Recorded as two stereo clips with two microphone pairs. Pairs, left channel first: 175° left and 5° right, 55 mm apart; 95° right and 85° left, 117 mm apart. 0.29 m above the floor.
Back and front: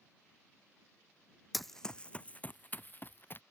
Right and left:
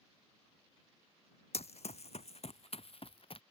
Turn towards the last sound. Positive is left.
turn(degrees=-135)